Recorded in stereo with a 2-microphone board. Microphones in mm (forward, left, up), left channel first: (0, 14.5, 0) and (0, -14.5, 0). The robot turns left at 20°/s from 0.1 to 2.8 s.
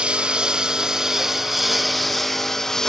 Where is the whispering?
No whispering in this recording.